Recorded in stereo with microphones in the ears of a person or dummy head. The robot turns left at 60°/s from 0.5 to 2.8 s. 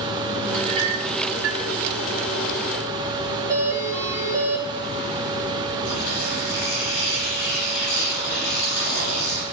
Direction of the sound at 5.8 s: 70° left (ahead or behind).